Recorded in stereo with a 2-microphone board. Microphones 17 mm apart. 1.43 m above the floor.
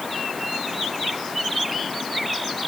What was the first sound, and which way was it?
Only background noise.